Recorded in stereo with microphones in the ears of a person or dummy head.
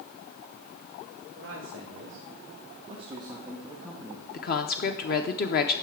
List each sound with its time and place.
1.4 s a man speaking: 65° right (ahead or behind), 1.5 m; by 4.2 s 10° left (ahead or behind), 1.1 m
4.3 s a woman speaking: 45° left (ahead or behind), 0.6 m